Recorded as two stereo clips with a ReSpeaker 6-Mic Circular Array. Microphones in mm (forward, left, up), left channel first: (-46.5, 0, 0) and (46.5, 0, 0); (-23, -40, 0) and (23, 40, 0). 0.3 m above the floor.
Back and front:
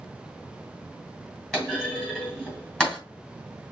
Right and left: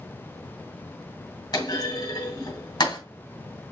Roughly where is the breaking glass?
No breaking glass in this recording.